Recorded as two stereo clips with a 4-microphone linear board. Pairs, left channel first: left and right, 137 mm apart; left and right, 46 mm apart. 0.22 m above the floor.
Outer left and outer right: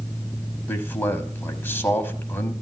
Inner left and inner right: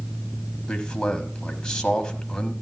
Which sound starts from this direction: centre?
A man speaking, at 0.7 s.